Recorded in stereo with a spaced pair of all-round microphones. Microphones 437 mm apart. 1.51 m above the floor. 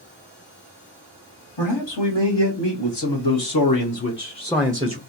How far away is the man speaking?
About 1.6 m.